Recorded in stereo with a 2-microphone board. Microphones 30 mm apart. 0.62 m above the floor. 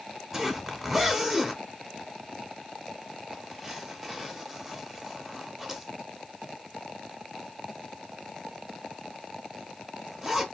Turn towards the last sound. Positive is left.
turn(degrees=-20)  # may be behind; listen again after turning